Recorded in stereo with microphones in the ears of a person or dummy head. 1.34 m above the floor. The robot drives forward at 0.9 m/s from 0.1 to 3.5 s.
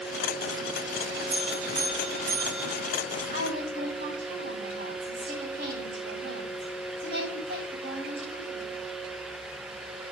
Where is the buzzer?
75° right (ahead or behind), 4 m; by 2.9 s 60° right (ahead or behind), 4.5 m.